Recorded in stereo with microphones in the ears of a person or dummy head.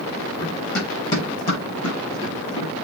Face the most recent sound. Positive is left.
turn(degrees=40)  # may be behind; listen again after turning